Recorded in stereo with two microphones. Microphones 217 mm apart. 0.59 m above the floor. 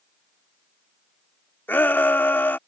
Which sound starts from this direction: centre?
A shout, at 1.7 s.